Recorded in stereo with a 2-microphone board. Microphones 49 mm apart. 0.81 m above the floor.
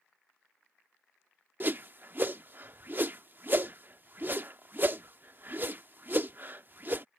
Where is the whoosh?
45° right (ahead or behind).